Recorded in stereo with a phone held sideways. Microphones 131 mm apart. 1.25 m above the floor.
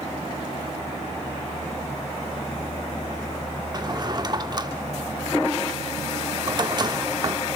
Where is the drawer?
35° right (ahead or behind), 1.0 m.